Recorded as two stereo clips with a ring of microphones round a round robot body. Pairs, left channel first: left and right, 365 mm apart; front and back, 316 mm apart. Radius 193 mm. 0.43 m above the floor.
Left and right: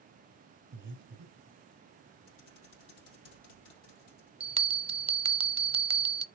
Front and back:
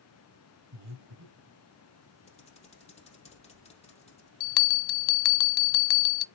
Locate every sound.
0.7 s breathing: 145° right, 2.5 m
2.3 s typing on a keyboard: 70° left, 3 m
4.4 s a bell: 15° right, 0.7 m